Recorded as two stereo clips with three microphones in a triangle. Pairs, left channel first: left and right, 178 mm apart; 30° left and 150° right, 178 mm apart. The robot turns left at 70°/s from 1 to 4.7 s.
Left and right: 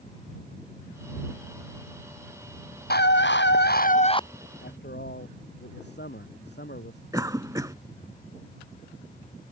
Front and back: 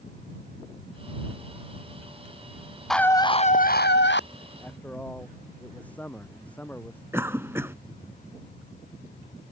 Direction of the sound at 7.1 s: 105° right.